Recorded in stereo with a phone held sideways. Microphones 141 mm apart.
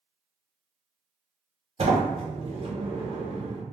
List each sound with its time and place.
1.8 s a sliding door: 45° right (ahead or behind), 0.6 m